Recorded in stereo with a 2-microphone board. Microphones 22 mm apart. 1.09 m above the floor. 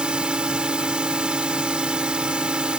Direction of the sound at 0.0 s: 45° right (ahead or behind).